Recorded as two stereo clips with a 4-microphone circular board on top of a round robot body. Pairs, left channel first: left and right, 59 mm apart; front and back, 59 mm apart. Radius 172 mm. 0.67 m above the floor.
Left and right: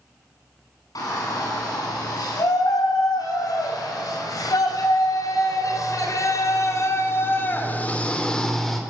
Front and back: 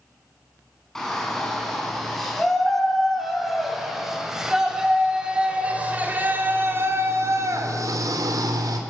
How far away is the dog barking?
I don't hear a dog barking.